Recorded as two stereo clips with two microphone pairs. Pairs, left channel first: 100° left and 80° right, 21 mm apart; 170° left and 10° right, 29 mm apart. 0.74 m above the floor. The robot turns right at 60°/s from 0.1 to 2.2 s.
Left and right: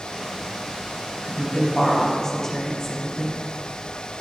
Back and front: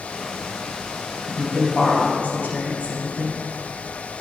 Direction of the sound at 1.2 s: 115° left.